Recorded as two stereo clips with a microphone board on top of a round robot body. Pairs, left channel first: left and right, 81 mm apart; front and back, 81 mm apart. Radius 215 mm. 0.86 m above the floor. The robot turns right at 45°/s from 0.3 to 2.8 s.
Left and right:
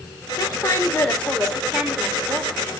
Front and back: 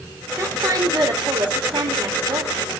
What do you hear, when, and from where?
0.4 s a woman speaking: 125° left, 4 m; by 2.6 s 135° right, 4 m